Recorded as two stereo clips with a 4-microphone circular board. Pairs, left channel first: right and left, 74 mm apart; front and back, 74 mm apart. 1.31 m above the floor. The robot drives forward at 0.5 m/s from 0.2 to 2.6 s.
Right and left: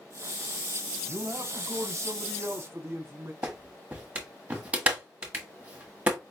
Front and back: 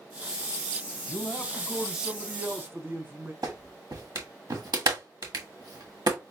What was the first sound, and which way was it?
A man speaking, 55° left.